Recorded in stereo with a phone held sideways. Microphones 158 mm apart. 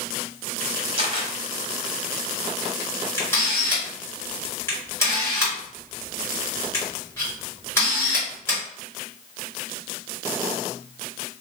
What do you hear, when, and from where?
1.0 s a camera shutter: 35° right (ahead or behind), 1.0 m
3.2 s a camera shutter: 15° left (ahead or behind), 1.6 m